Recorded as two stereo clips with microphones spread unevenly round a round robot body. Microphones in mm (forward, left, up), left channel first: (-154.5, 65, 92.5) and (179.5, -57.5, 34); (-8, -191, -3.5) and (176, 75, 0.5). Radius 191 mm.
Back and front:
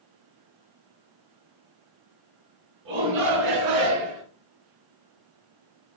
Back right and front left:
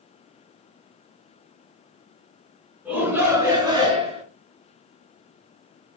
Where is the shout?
30° right, 4 m; by 4.2 s 15° right, 3.5 m.